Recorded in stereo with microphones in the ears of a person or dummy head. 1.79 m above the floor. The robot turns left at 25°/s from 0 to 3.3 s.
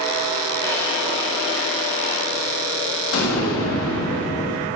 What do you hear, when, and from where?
0.6 s a drawer: 165° left, 5 m; by 2.2 s 130° left, 5 m
3.1 s an explosion: 75° left (ahead or behind), 2.5 m